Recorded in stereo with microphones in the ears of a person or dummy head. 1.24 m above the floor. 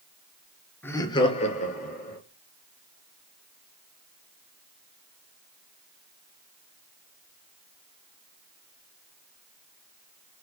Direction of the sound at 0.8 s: 10° left (ahead or behind).